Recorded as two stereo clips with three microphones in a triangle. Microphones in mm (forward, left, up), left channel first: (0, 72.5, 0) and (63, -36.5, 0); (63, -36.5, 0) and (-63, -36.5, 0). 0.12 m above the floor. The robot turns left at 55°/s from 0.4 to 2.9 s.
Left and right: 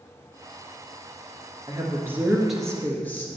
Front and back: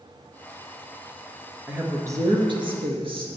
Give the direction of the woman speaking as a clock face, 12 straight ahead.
3 o'clock.